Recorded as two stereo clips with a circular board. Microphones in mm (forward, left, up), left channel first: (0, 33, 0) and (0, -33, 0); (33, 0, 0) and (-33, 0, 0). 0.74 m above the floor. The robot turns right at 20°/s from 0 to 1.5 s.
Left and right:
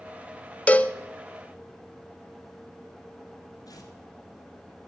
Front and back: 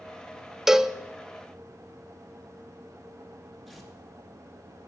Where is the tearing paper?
95° left, 2.5 m.